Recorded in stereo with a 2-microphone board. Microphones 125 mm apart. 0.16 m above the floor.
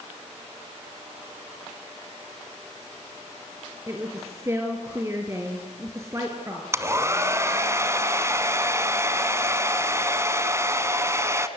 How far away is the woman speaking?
About 3 m.